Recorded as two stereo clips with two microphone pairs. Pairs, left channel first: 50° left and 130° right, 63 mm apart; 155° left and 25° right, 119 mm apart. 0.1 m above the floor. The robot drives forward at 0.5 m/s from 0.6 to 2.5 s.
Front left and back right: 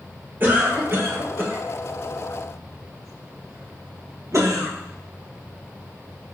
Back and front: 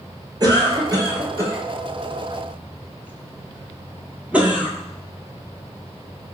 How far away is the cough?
About 2.5 m.